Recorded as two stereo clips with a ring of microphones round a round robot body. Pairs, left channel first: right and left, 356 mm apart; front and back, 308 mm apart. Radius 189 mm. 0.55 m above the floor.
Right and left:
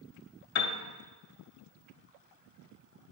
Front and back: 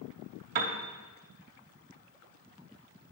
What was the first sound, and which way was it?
A piano, 145° right.